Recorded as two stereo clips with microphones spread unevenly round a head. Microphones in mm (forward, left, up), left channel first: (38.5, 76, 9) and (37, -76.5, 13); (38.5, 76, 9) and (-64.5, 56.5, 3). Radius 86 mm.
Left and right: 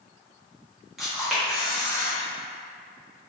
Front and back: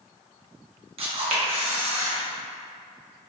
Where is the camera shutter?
Straight behind, 0.8 m.